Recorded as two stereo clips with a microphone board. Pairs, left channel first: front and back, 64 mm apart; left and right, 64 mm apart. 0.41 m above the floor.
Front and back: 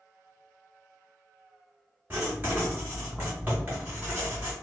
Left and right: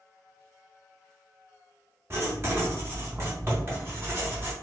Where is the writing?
125° right, 1.6 m.